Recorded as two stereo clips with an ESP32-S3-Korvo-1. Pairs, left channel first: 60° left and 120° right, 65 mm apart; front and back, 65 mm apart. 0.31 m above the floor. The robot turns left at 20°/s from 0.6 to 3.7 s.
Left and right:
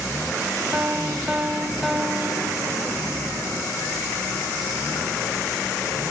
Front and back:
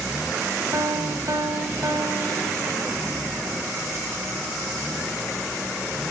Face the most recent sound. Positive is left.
turn(degrees=115)